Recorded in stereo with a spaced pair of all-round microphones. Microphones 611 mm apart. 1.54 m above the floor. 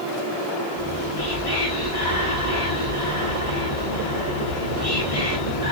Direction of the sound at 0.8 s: 60° left (ahead or behind).